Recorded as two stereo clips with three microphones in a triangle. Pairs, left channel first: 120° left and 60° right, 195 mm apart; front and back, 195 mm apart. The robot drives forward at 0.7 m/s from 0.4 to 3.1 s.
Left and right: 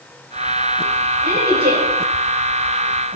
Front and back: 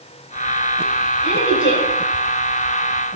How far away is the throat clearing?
I don't hear throat clearing.